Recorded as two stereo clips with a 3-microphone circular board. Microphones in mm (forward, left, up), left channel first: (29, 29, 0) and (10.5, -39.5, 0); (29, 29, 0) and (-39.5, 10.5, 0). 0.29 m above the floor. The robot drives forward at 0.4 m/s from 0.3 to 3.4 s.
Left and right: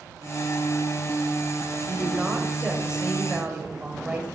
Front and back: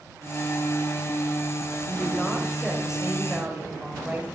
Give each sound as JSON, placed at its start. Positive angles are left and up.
{"t": 1.9, "sound": "a woman speaking", "azimuth_deg": -30, "distance_m": 1.0}